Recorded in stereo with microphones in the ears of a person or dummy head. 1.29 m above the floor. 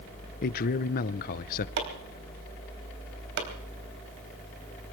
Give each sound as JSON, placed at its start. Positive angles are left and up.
{"t": 0.4, "sound": "a man speaking", "side_deg": 45, "distance_m": 0.6}
{"t": 1.8, "sound": "chopping", "side_deg": -60, "distance_m": 3.5}